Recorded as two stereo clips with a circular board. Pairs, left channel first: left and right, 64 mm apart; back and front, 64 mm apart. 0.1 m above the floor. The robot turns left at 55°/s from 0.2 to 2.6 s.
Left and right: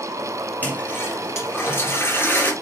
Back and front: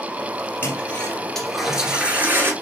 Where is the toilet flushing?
140° left, 1.9 m; by 2.5 s 35° left, 1.9 m.